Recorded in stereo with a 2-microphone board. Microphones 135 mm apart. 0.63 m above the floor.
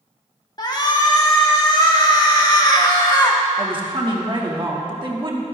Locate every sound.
0.6 s a shout: 30° left (ahead or behind), 1.2 m
3.6 s a woman speaking: 40° right (ahead or behind), 1.3 m